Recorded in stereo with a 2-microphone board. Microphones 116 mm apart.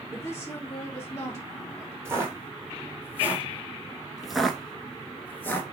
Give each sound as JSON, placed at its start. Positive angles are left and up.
{"t": 0.1, "sound": "a woman speaking", "side_deg": 25, "distance_m": 2.5}
{"t": 2.0, "sound": "footsteps", "side_deg": -20, "distance_m": 1.5}